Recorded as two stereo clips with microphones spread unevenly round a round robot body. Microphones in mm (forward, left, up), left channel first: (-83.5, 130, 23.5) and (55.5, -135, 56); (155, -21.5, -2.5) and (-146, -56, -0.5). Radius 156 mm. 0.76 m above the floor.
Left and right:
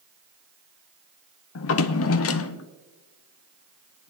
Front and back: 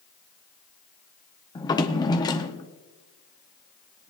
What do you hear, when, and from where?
1.6 s a drawer: 85° left, 0.6 m